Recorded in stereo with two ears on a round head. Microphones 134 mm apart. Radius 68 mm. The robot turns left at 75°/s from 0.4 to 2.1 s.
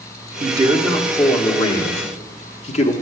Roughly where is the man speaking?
Behind right.